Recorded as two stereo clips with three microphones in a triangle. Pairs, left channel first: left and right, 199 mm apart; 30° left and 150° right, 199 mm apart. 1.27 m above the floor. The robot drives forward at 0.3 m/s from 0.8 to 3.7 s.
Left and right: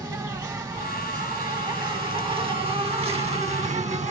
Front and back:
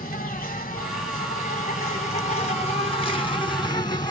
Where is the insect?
20° right, 1.6 m; by 4.1 s 40° right, 0.9 m.